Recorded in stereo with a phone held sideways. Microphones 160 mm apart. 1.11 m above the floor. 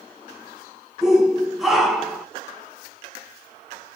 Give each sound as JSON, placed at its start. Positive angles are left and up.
{"t": 1.0, "sound": "a shout", "side_deg": -5, "distance_m": 1.5}